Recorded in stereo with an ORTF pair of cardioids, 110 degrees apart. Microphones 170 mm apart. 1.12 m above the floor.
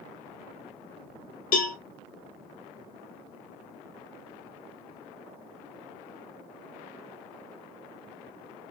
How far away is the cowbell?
About 0.9 m.